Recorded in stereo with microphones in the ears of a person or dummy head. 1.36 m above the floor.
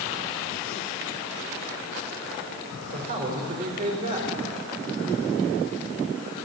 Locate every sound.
2.9 s a man speaking: 45° right (ahead or behind), 3 m